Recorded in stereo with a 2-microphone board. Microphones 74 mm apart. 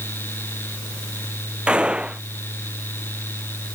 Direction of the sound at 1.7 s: 15° right (ahead or behind).